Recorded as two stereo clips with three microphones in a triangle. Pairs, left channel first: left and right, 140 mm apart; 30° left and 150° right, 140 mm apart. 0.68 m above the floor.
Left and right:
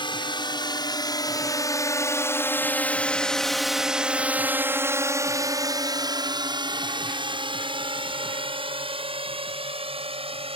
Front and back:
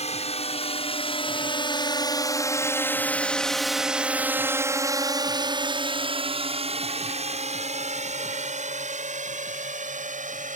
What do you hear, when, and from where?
0.0 s a drone: 45° left; by 10.6 s 135° right